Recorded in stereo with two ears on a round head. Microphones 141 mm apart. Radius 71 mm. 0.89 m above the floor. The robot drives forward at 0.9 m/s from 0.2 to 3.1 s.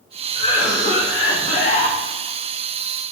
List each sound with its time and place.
0.3 s a cough: 40° left (ahead or behind), 1.7 m; by 2.0 s 50° left (ahead or behind), 1.5 m